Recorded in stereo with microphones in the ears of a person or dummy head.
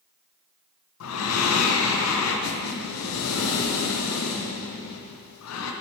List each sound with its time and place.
1.0 s breathing: 85° left, 0.7 m